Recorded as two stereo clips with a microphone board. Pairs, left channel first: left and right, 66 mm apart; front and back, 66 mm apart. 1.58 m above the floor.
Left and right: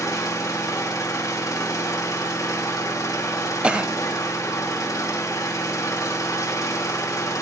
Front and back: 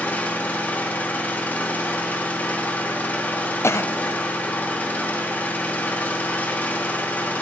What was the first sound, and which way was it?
An engine running, 65° left.